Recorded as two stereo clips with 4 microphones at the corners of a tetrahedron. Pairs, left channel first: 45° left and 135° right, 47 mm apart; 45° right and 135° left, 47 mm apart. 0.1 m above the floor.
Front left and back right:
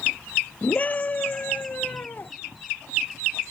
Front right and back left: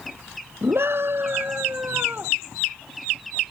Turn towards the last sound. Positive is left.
turn(degrees=90)